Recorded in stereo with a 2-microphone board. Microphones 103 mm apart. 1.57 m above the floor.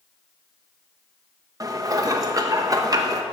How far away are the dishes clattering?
About 0.9 m.